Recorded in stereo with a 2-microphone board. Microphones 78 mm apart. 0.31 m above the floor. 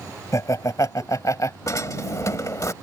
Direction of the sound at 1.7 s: 45° left (ahead or behind).